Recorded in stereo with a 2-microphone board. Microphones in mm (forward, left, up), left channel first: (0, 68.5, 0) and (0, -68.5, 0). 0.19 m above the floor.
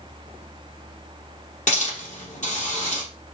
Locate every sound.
1.7 s a hiss: 60° left (ahead or behind), 4.5 m